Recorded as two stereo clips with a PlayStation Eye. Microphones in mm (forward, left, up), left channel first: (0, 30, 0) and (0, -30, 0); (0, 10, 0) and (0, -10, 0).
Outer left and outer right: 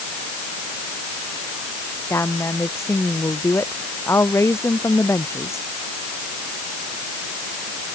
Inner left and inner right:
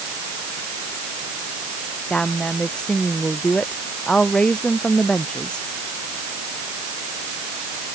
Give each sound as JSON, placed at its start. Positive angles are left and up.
{"t": 2.1, "sound": "a woman speaking", "side_deg": 50}